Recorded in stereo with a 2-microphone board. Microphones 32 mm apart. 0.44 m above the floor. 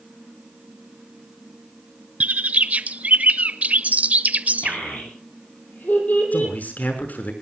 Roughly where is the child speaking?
Left.